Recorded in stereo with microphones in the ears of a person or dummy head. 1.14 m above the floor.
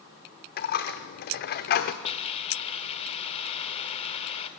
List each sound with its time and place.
0.6 s a dropped coin: 45° left (ahead or behind), 0.9 m
2.0 s a hiss: 30° left (ahead or behind), 1.5 m